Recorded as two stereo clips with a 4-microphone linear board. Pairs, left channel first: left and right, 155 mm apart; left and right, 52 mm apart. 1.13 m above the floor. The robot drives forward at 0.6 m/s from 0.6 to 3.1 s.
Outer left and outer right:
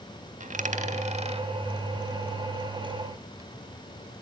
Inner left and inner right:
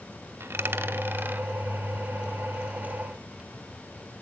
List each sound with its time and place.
0.4 s a dropped coin: 55° right (ahead or behind), 1.0 m; by 3.5 s 25° right (ahead or behind), 2 m